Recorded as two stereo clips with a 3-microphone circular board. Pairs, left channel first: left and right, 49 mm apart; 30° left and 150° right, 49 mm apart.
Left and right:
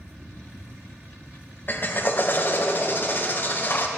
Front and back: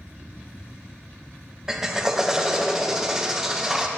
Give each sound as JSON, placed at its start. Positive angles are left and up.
{"t": 1.7, "sound": "a drill", "azimuth_deg": 135, "distance_m": 0.7}